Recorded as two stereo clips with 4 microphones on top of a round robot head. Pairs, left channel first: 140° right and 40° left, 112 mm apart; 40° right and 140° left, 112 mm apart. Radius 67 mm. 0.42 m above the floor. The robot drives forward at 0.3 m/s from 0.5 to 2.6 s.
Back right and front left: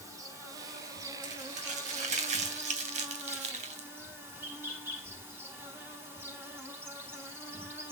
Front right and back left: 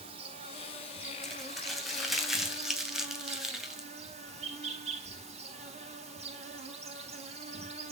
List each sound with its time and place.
0.0 s an insect: 105° left, 4 m; by 7.9 s 110° left, 4 m
1.2 s crumpling: 45° left, 3 m; by 3.9 s 55° left, 3 m